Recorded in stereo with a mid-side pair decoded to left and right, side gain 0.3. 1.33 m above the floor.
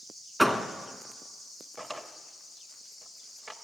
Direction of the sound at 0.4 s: Straight ahead.